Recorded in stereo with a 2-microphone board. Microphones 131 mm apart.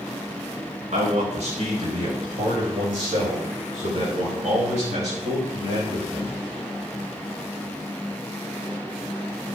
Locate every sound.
0.9 s a man speaking: 75° right (ahead or behind), 5.5 m; by 6.4 s 70° right (ahead or behind), 8 m